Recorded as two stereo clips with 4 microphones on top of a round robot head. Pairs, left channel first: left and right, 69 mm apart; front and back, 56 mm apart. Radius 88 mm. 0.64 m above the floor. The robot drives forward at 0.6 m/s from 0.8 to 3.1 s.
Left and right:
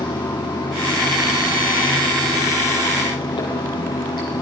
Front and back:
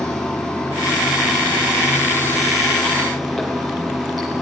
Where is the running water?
80° left, 7.5 m; by 4.4 s 90° left, 7.5 m.